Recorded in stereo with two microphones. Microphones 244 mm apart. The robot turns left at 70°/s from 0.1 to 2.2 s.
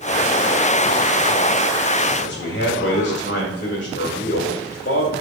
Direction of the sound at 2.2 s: 45° left (ahead or behind).